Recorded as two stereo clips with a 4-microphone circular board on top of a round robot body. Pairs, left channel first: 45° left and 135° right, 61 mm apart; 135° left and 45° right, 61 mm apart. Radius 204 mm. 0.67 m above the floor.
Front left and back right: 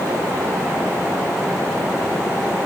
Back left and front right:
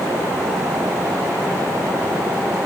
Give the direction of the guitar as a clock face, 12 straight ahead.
No guitar in this recording.